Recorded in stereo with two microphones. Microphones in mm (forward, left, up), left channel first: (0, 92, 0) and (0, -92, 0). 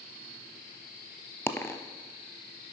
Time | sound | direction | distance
1.5 | a dropped coin | 15° left (ahead or behind) | 0.5 m